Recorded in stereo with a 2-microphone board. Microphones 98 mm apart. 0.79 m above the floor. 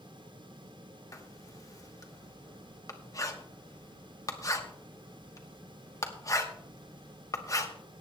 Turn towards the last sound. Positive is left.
turn(degrees=35)  # may be behind; listen again after turning